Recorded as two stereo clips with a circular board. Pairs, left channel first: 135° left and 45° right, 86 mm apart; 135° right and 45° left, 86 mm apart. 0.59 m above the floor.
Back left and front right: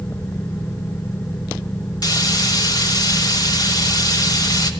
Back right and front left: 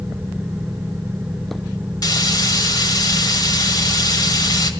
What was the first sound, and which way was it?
Frying, straight behind.